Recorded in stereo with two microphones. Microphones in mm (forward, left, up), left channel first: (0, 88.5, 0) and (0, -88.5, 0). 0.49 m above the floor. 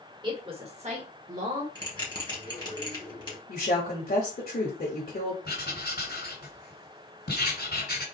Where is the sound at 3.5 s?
60° left (ahead or behind), 1.3 m.